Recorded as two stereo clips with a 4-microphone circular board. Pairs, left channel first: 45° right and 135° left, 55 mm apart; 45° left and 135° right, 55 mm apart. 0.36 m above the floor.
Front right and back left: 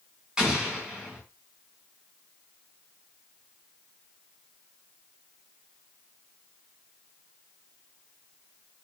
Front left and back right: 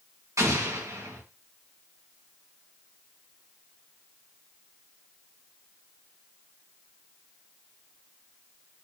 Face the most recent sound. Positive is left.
turn(degrees=-150)